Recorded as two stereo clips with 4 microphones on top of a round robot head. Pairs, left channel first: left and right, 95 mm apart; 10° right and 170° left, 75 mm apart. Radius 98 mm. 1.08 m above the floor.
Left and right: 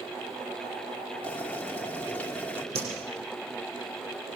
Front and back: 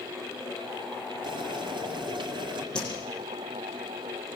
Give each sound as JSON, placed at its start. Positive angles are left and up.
{"t": 1.2, "sound": "boiling", "azimuth_deg": 165, "distance_m": 3.0}
{"t": 2.8, "sound": "a whoosh", "azimuth_deg": -90, "distance_m": 8.0}